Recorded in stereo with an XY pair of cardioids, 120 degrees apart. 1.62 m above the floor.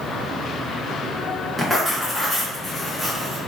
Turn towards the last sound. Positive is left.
turn(degrees=0)